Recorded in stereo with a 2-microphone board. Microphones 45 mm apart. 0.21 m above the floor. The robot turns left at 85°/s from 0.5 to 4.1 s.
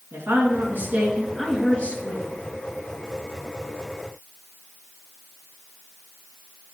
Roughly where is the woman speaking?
Right.